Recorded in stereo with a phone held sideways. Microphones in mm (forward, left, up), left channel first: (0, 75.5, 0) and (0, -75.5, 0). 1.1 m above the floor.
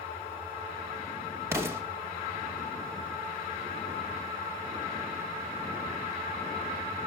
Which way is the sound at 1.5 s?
15° right (ahead or behind).